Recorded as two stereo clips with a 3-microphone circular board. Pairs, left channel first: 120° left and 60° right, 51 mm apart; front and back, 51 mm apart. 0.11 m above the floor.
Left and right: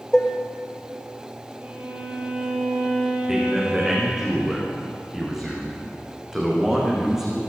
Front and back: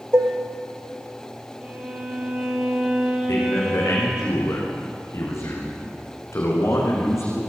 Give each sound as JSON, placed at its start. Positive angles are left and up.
{"t": 0.1, "sound": "dishes clattering", "azimuth_deg": -160, "distance_m": 1.7}
{"t": 1.6, "sound": "a violin", "azimuth_deg": -115, "distance_m": 3.0}
{"t": 3.3, "sound": "a man speaking", "azimuth_deg": 20, "distance_m": 7.5}